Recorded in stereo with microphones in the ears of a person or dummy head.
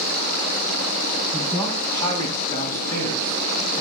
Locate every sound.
1.3 s a man speaking: 20° left (ahead or behind), 8 m